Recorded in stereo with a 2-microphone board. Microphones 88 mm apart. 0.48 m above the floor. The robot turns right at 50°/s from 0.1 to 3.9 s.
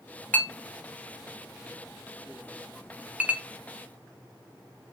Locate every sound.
0.3 s a clink: 20° left (ahead or behind), 0.5 m; by 3.4 s 20° right (ahead or behind), 0.5 m